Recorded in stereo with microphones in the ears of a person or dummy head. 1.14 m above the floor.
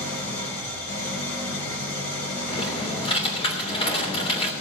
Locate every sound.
0.0 s an engine running: 50° left (ahead or behind), 3.5 m
2.5 s typing on a keyboard: 30° left (ahead or behind), 2.5 m